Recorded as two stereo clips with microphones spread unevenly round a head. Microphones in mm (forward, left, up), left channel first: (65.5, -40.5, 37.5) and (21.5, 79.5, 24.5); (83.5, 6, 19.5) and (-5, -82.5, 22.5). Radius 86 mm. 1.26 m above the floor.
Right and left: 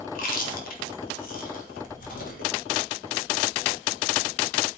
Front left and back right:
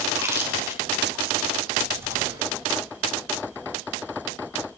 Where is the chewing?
65° right, 3 m.